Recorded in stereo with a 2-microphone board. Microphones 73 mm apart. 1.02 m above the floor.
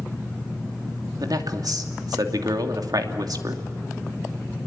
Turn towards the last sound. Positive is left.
turn(degrees=-65)  # may be behind; listen again after turning